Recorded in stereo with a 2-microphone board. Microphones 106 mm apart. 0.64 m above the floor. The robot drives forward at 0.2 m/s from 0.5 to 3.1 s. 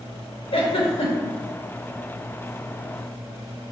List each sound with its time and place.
0.5 s a giggle: 60° left (ahead or behind), 0.6 m; by 1.4 s 70° left (ahead or behind), 0.6 m